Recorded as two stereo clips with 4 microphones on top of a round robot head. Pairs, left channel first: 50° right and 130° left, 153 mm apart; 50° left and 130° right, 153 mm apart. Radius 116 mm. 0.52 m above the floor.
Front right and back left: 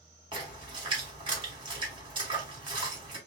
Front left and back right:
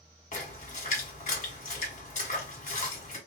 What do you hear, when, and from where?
0.3 s a splash: 80° left, 1.7 m